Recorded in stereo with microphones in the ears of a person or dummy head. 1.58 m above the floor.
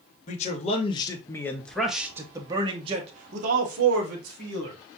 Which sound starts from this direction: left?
A man speaking, at 0.3 s.